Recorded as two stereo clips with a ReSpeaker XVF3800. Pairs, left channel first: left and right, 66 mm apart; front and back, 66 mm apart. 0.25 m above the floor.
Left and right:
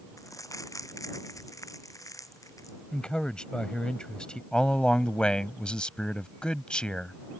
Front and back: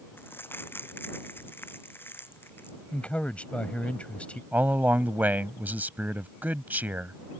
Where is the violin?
No violin in this recording.